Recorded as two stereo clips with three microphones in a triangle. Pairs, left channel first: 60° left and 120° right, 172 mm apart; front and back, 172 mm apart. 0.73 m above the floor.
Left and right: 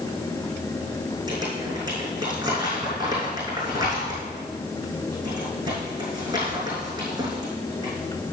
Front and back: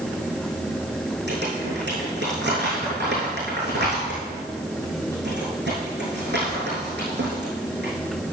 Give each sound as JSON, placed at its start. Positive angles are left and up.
{"t": 1.3, "sound": "crumpling", "azimuth_deg": 175, "distance_m": 6.0}